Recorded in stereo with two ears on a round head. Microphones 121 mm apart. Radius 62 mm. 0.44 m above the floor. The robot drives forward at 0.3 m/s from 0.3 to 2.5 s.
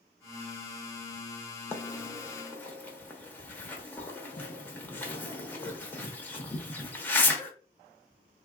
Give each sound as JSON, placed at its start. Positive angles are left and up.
{"t": 1.7, "sound": "a bird", "side_deg": 15, "distance_m": 0.8}